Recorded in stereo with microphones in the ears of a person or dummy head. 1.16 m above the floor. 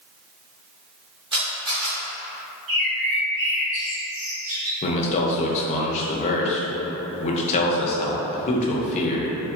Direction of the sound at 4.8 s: 45° left (ahead or behind).